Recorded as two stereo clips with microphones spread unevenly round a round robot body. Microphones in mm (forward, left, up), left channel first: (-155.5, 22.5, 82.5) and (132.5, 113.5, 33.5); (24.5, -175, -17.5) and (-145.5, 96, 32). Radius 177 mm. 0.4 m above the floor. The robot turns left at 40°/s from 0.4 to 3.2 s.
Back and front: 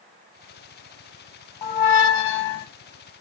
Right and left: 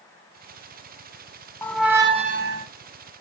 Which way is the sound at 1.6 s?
145° right.